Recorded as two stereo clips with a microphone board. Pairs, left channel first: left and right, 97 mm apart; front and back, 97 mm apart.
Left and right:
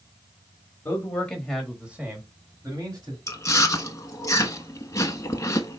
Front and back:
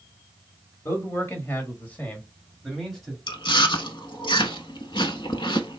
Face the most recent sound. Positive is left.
turn(degrees=30)